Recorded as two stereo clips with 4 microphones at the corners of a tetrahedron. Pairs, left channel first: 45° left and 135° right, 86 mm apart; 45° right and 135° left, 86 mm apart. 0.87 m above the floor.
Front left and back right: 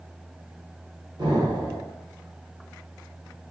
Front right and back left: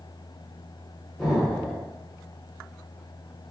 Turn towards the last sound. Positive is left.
turn(degrees=-130)